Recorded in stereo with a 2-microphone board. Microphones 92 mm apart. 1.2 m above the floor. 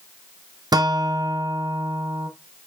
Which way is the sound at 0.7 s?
45° right (ahead or behind).